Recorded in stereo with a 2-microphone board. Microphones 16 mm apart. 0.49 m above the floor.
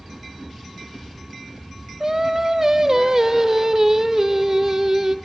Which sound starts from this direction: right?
Singing, at 2.0 s.